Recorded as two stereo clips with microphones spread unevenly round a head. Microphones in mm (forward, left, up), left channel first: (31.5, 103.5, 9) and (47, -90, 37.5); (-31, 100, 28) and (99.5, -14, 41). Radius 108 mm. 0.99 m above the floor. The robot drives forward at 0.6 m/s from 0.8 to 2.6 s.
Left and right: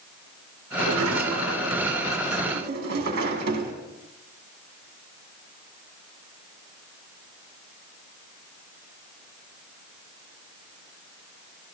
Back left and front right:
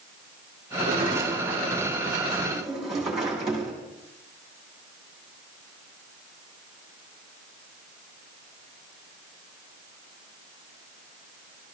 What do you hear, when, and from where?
0.8 s a sliding door: 105° right, 1.9 m; by 3.7 s 130° right, 2.5 m